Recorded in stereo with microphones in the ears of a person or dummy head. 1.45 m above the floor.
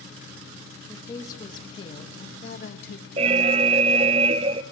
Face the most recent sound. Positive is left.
turn(degrees=-30)  # may be behind; listen again after turning